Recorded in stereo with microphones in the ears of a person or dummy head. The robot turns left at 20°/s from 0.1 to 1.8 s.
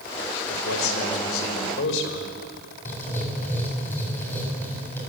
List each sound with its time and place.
0.5 s a man speaking: 80° left, 4 m; by 2.3 s 75° left (ahead or behind), 4 m
2.9 s writing: 10° left (ahead or behind), 7.5 m